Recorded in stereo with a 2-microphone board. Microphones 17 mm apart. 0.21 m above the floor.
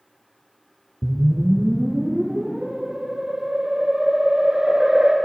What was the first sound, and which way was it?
A whoosh, 65° right (ahead or behind).